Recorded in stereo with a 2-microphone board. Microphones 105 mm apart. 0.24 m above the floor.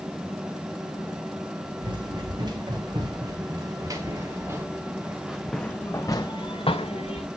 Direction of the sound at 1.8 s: 45° right (ahead or behind).